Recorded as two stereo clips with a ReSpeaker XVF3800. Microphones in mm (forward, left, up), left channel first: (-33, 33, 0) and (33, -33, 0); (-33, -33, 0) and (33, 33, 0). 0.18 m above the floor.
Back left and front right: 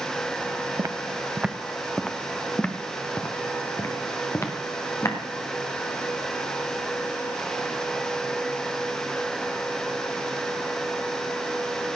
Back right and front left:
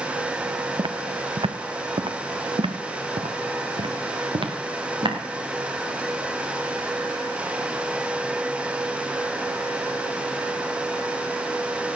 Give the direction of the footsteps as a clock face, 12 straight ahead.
12 o'clock.